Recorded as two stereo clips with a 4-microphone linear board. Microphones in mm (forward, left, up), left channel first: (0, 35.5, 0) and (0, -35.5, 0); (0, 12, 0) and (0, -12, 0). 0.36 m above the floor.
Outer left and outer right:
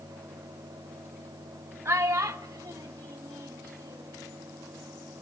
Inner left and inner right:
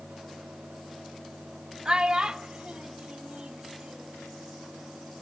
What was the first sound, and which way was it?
A child speaking, 40° right (ahead or behind).